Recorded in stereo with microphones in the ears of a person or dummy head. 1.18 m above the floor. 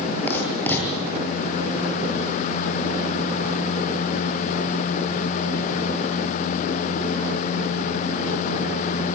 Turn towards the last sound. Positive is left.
turn(degrees=10)  # may be behind; listen again after turning